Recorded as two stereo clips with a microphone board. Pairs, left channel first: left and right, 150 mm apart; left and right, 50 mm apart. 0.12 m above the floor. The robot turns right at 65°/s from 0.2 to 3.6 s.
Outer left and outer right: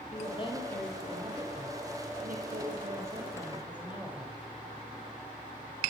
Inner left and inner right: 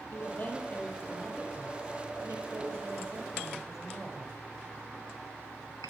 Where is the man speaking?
130° left, 3 m; by 4.4 s 10° right, 3 m.